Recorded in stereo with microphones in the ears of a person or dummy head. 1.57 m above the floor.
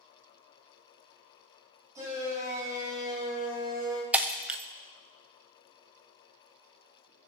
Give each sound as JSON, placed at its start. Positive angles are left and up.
{"t": 1.9, "sound": "a shout", "side_deg": -20, "distance_m": 7.5}
{"t": 4.1, "sound": "breaking glass", "side_deg": -10, "distance_m": 0.9}